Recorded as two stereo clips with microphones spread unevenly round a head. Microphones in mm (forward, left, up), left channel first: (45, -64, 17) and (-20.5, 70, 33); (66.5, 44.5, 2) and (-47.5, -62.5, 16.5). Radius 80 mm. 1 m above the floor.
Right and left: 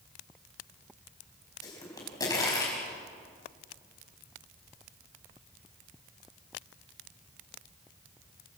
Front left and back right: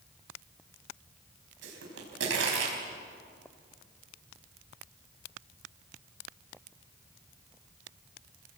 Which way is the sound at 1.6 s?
135° right.